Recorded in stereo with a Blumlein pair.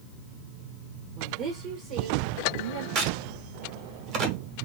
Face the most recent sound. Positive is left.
turn(degrees=-40)